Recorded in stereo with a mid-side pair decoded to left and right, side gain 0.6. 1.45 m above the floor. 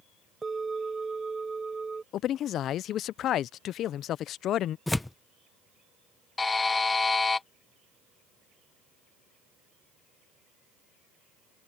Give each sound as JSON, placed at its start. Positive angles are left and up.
{"t": 0.4, "sound": "a bell", "azimuth_deg": -20}
{"t": 2.1, "sound": "a man speaking", "azimuth_deg": 55}
{"t": 4.9, "sound": "tearing paper", "azimuth_deg": 10}
{"t": 6.4, "sound": "a buzzer", "azimuth_deg": 20}